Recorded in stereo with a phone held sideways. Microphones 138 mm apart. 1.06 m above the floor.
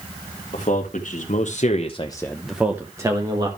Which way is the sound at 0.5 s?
65° left (ahead or behind).